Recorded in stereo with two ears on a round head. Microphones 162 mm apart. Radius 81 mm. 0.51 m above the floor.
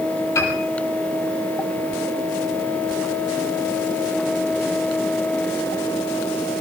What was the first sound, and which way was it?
A piano, 20° left (ahead or behind).